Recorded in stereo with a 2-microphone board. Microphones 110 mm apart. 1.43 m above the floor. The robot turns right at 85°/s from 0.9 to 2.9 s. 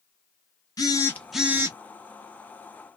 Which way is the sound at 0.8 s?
145° left.